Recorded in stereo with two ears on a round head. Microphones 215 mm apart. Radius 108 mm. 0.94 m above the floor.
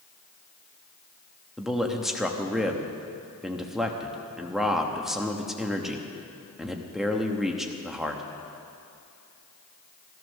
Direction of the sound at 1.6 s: Centre (ahead or behind).